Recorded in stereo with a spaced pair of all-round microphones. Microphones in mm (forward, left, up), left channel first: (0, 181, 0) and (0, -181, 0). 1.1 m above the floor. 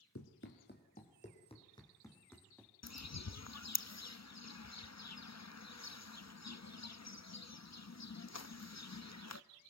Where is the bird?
45° left (ahead or behind), 0.6 m.